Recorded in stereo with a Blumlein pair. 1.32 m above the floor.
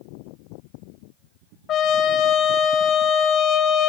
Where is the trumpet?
30° left, 1.8 m.